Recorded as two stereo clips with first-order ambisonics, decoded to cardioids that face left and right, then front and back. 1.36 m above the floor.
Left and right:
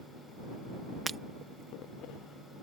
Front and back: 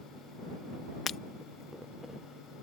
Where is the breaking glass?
30° right.